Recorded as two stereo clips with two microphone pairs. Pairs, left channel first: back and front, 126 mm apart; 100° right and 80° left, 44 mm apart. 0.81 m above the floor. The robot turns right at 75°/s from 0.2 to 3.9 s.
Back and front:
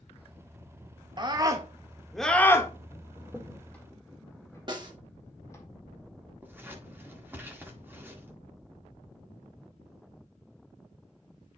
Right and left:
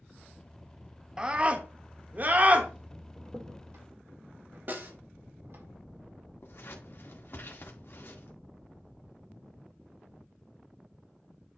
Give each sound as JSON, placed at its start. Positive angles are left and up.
{"t": 1.2, "sound": "a scream", "azimuth_deg": 15, "distance_m": 1.2}
{"t": 3.2, "sound": "a crack", "azimuth_deg": 60, "distance_m": 1.8}
{"t": 4.7, "sound": "a snare drum", "azimuth_deg": 45, "distance_m": 1.5}
{"t": 6.4, "sound": "scissors", "azimuth_deg": -75, "distance_m": 1.7}